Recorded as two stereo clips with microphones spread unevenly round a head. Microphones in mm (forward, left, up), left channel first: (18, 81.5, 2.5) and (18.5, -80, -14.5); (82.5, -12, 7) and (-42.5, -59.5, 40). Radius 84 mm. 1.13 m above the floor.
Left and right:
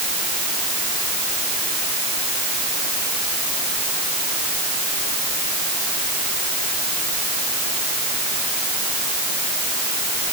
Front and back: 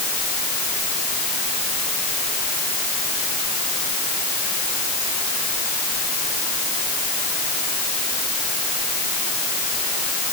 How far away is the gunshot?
I don't hear a gunshot.